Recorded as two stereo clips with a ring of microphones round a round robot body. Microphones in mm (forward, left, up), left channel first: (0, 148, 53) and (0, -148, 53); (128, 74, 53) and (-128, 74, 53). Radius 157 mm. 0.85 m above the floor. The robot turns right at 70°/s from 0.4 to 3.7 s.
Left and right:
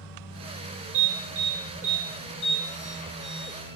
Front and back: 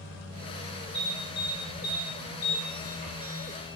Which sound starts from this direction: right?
An alarm, at 0.9 s.